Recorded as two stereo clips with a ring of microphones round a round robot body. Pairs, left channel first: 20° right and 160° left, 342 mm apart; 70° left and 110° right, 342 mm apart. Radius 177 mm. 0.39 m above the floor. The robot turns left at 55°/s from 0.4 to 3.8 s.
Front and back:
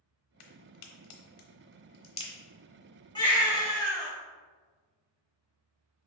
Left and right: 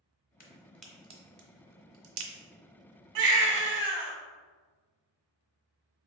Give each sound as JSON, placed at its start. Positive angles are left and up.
{"t": 0.4, "sound": "a crack", "azimuth_deg": 0, "distance_m": 0.9}
{"t": 3.1, "sound": "a baby crying", "azimuth_deg": -100, "distance_m": 1.1}